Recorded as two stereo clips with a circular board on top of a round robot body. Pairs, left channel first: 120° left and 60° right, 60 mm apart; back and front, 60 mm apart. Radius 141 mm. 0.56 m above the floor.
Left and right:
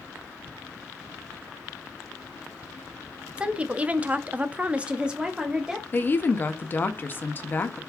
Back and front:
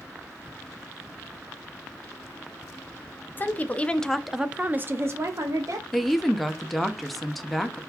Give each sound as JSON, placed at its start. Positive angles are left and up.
{"t": 3.4, "sound": "a woman speaking", "azimuth_deg": -130, "distance_m": 0.8}
{"t": 5.9, "sound": "a woman speaking", "azimuth_deg": 95, "distance_m": 0.7}